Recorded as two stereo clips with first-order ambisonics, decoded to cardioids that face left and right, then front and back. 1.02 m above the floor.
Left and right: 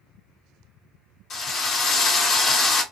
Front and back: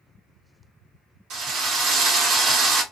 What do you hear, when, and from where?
1.3 s a drill: 145° left, 1.0 m